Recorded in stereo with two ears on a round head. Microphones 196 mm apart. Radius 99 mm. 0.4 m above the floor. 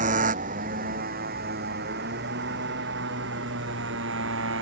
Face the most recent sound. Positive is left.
turn(degrees=-55)  # may be behind; listen again after turning